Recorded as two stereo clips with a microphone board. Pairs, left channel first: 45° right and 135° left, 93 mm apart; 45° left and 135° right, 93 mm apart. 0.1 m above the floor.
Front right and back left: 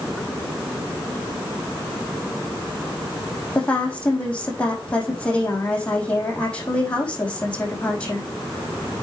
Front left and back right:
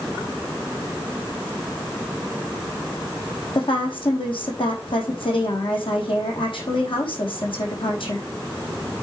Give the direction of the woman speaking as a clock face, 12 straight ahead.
11 o'clock.